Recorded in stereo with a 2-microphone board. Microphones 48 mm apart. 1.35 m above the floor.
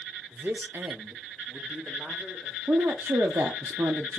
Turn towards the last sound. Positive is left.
turn(degrees=-80)